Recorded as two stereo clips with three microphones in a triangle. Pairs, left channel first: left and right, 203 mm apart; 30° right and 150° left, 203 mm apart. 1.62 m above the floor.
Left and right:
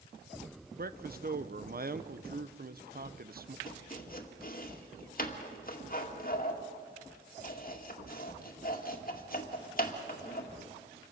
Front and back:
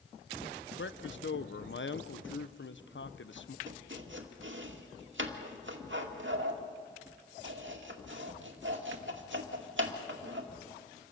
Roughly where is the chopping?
Behind left.